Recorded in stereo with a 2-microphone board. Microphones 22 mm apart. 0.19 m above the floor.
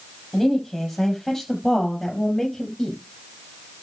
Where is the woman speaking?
10° left (ahead or behind), 6 m.